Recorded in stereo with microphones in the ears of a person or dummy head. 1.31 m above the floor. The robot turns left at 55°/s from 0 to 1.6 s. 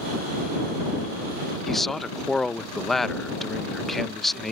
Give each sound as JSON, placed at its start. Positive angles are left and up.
{"t": 1.7, "sound": "a man speaking", "side_deg": 5}